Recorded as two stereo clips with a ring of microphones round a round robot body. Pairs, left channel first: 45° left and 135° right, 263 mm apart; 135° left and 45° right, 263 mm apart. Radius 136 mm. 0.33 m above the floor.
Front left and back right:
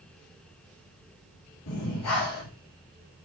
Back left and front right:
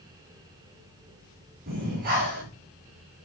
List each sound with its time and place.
1.7 s breathing: 15° left, 7.5 m